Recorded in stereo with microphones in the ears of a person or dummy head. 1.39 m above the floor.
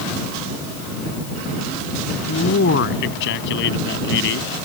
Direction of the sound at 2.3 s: 65° left (ahead or behind).